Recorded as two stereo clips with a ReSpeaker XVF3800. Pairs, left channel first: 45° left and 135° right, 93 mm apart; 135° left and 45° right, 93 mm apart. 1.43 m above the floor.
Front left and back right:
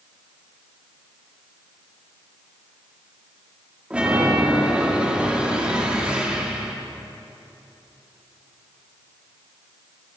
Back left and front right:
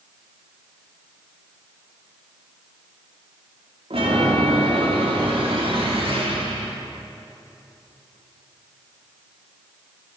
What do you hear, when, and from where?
3.9 s a chime: 55° right, 4 m